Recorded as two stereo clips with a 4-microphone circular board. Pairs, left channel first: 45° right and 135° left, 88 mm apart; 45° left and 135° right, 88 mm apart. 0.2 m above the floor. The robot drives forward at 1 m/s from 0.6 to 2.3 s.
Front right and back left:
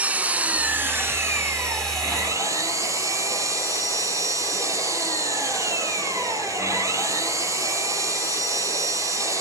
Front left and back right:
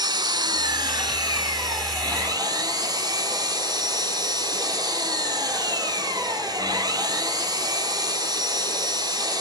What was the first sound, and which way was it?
An engine running, 155° right.